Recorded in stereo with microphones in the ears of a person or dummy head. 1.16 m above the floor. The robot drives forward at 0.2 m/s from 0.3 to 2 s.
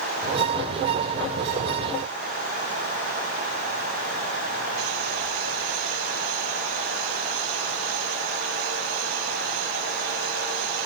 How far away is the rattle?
No rattle in this recording.